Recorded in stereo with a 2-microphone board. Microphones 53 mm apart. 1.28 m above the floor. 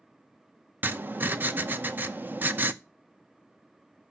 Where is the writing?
35° right (ahead or behind), 0.7 m.